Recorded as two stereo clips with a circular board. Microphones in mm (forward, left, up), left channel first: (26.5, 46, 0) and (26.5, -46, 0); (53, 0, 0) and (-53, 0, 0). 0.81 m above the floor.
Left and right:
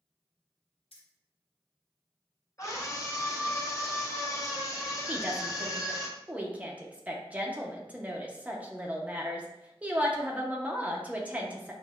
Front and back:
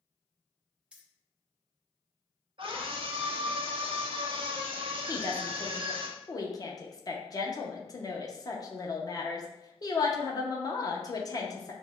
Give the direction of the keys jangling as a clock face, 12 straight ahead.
9 o'clock.